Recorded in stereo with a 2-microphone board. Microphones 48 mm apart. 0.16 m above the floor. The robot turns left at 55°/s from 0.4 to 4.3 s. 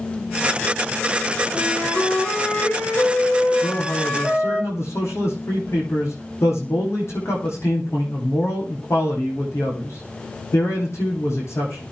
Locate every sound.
1.5 s a flute: 145° right, 8 m; by 4.6 s 60° left, 8 m
3.6 s a man speaking: 110° left, 8.5 m; by 11.8 s 70° left, 8.5 m